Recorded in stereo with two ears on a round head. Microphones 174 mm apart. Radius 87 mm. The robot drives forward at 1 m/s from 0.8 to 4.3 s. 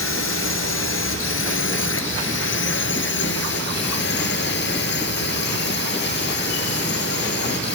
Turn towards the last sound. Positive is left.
turn(degrees=60)  # may be behind; listen again after turning